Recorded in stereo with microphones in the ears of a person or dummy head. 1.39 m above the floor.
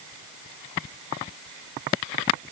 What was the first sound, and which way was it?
Only background noise.